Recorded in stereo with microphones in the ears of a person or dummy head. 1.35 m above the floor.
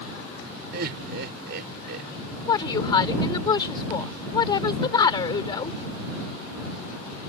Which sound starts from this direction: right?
Laughter, at 0.7 s.